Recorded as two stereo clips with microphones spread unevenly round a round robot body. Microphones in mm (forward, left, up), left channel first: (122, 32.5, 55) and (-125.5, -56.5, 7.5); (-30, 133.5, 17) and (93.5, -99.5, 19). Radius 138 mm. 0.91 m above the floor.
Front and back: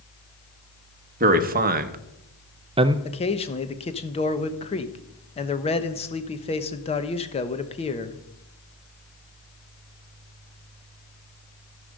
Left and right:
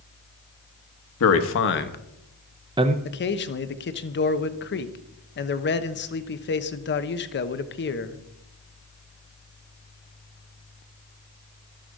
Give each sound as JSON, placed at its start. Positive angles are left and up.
{"t": 1.2, "sound": "a man speaking", "azimuth_deg": 150, "distance_m": 1.3}
{"t": 3.0, "sound": "a man speaking", "azimuth_deg": 90, "distance_m": 1.0}